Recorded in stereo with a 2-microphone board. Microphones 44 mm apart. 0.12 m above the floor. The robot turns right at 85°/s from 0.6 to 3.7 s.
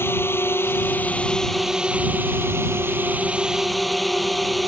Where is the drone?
95° left; by 4.7 s straight ahead.